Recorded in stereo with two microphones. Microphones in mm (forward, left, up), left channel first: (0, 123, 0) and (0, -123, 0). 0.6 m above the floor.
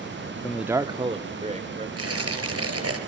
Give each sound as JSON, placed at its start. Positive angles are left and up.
{"t": 0.4, "sound": "a man speaking", "side_deg": 10, "distance_m": 0.6}
{"t": 2.0, "sound": "tearing paper", "side_deg": -70, "distance_m": 4.0}